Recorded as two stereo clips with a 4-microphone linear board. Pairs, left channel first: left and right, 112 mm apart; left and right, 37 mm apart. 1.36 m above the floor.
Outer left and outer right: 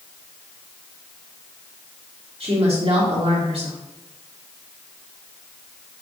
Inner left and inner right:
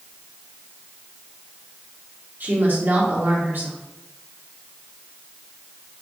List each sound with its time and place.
2.4 s a woman speaking: 60° right (ahead or behind), 1.8 m